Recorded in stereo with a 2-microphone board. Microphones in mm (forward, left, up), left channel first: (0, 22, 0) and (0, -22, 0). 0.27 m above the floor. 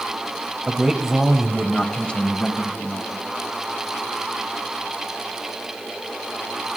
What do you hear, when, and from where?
0.7 s a man speaking: 25° right (ahead or behind), 1.1 m; by 3.2 s 45° left (ahead or behind), 1.7 m